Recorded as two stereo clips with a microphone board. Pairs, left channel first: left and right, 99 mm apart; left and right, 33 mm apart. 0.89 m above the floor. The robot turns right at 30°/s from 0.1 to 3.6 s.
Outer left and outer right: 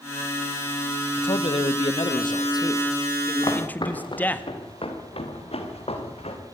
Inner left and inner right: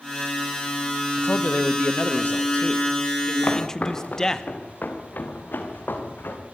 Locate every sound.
1.2 s a man speaking: 90° left, 1.5 m; by 4.4 s 160° left, 1.5 m
3.4 s footsteps: 45° left (ahead or behind), 4.5 m; by 6.4 s 80° left, 5.5 m